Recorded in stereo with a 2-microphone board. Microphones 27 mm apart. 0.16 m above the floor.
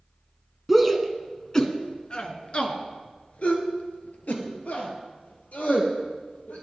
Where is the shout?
Centre (ahead or behind), 1.3 m; by 6.6 s 75° left (ahead or behind), 4 m.